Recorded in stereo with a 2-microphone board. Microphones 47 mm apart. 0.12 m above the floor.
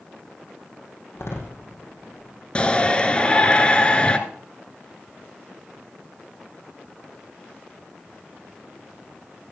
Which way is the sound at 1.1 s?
70° left (ahead or behind).